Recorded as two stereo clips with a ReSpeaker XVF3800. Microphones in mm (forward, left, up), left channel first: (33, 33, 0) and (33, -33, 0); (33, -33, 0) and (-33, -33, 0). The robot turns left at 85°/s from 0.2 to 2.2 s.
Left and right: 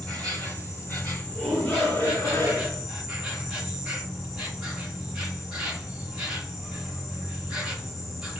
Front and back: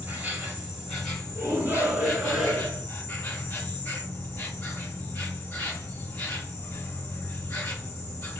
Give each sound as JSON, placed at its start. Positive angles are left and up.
{"t": 0.0, "sound": "an insect", "azimuth_deg": 155, "distance_m": 1.8}
{"t": 1.4, "sound": "a shout", "azimuth_deg": 175, "distance_m": 1.8}